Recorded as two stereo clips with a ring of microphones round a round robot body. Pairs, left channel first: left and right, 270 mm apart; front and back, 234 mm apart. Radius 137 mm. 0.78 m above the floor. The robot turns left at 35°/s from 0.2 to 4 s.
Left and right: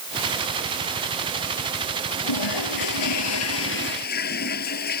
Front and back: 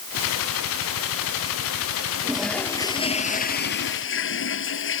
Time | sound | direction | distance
2.2 | a toilet flushing | 95° left | ?